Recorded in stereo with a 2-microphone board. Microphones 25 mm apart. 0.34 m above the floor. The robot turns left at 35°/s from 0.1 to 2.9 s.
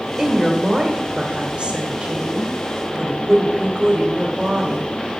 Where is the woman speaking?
20° right, 1.8 m; by 4.9 s 115° right, 1.8 m.